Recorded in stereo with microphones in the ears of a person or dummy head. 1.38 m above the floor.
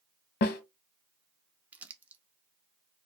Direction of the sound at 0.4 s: 50° left (ahead or behind).